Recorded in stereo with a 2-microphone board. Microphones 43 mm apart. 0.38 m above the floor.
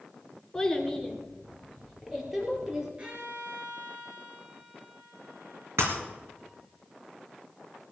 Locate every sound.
0.5 s a child speaking: 10° left (ahead or behind), 2.5 m; by 2.9 s 15° right (ahead or behind), 5 m
3.0 s a violin: 25° right (ahead or behind), 4 m
5.8 s breaking glass: 80° right, 3 m